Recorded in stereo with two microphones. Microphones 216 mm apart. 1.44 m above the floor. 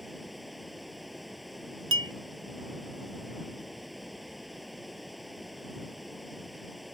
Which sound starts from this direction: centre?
Running water, at 0.0 s.